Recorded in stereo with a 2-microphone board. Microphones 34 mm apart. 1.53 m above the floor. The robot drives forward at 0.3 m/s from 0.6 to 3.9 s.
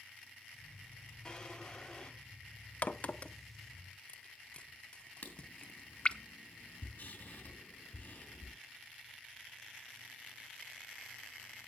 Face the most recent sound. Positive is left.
turn(degrees=45)  # may be behind; listen again after turning